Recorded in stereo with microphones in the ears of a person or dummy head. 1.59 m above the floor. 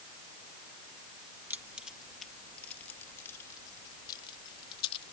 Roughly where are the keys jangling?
Centre.